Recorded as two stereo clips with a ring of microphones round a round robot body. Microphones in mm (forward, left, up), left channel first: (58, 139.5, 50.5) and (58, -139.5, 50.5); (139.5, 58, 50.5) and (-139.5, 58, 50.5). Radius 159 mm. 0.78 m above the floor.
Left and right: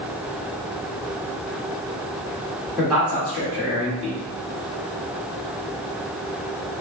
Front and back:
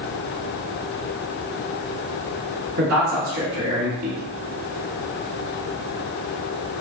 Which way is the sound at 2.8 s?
175° right.